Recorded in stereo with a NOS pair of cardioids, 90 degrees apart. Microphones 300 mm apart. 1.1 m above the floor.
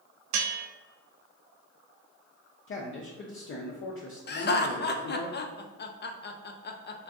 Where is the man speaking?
40° left, 0.6 m.